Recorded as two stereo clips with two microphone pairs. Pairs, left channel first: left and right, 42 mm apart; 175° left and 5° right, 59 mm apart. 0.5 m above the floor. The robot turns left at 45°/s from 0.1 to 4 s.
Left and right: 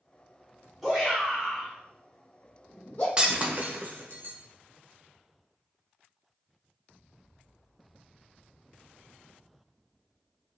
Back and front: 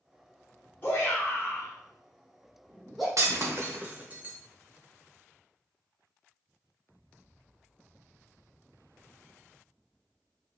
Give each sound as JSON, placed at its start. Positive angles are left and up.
{"t": 0.8, "sound": "a shout", "azimuth_deg": 180, "distance_m": 0.9}
{"t": 3.2, "sound": "breaking glass", "azimuth_deg": -30, "distance_m": 0.7}